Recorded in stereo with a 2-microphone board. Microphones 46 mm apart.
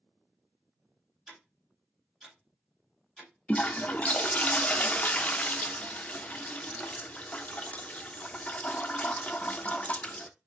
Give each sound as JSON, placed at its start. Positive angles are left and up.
{"t": 1.3, "sound": "ticking", "side_deg": -15, "distance_m": 1.9}
{"t": 3.5, "sound": "a toilet flushing", "side_deg": 30, "distance_m": 0.5}